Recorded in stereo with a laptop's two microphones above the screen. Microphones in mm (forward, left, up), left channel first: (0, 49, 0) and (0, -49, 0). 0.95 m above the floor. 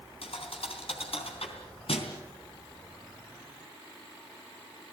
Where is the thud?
75° left (ahead or behind), 3.5 m.